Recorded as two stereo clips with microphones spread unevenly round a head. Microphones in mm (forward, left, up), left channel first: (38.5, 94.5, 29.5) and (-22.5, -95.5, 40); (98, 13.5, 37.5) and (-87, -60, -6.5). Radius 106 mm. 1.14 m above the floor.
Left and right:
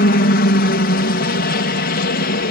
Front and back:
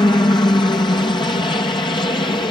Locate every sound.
0.0 s a helicopter: 100° left